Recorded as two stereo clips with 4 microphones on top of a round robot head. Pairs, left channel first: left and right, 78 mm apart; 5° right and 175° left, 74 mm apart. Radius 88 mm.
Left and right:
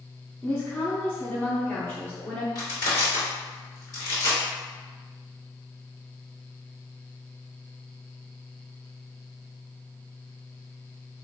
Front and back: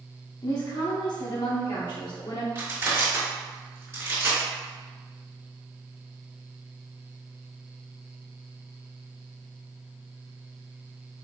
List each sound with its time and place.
0.4 s a woman speaking: 25° left, 1.0 m
2.5 s crushing: 125° left, 2.0 m